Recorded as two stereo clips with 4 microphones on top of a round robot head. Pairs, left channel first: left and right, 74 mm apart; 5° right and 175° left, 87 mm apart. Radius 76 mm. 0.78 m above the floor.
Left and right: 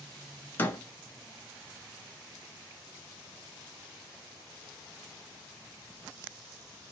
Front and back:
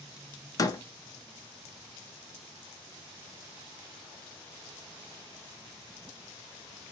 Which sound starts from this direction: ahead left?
A door slam, at 0.6 s.